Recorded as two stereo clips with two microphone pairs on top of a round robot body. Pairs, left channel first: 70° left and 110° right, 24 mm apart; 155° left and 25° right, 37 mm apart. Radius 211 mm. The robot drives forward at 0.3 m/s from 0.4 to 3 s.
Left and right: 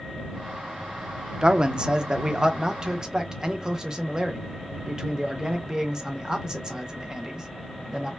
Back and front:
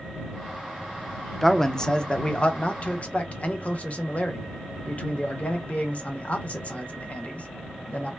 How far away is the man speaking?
About 0.6 m.